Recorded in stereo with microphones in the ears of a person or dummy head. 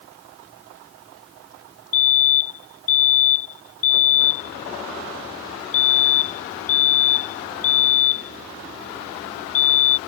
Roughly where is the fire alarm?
Left.